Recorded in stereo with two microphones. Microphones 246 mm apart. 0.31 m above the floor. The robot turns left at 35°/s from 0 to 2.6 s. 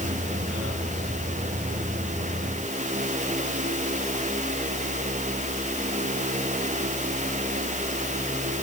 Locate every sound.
Only background noise.